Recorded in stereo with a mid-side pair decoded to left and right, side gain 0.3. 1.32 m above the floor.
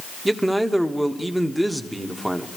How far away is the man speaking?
About 1.4 m.